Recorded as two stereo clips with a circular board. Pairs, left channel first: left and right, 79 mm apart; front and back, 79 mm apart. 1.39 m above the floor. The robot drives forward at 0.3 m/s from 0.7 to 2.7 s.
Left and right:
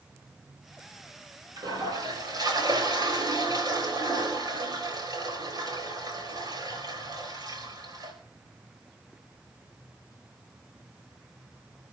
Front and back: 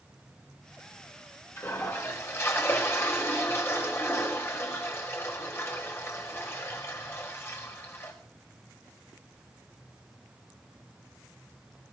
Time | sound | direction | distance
1.6 | a toilet flushing | 55° right | 4.5 m